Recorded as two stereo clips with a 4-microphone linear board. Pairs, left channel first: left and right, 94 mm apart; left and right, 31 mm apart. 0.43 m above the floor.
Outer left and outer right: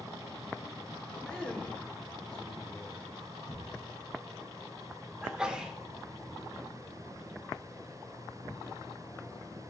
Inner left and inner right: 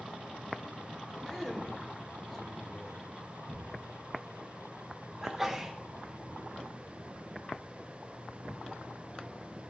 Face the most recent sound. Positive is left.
turn(degrees=-10)  # may be behind; listen again after turning